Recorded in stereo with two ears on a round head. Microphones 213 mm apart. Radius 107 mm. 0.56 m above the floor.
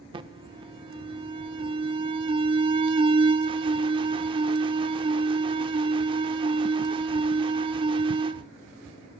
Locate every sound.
0.1 s an alarm: 20° right (ahead or behind), 0.6 m